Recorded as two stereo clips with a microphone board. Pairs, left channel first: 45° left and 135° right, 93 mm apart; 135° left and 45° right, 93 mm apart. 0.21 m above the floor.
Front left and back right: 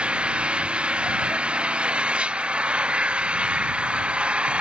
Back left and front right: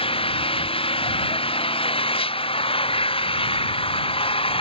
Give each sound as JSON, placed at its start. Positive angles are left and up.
{"t": 0.0, "sound": "an engine running", "azimuth_deg": 145}